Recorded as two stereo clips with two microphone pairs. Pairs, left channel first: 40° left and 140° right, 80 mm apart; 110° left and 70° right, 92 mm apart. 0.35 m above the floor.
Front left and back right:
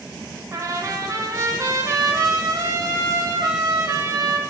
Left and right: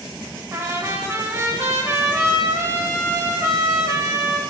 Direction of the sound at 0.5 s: 115° right.